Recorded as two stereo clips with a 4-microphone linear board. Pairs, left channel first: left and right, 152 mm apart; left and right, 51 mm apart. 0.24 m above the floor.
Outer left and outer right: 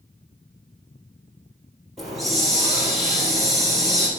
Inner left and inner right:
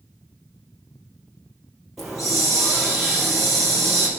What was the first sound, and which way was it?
A hiss, centre (ahead or behind).